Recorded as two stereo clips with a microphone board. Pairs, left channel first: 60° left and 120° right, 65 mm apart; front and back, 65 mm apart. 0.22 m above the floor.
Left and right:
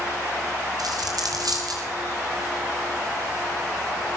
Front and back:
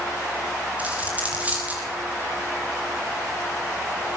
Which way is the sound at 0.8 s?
110° right.